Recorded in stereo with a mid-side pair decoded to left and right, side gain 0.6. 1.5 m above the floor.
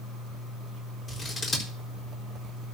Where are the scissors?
25° left, 4 m.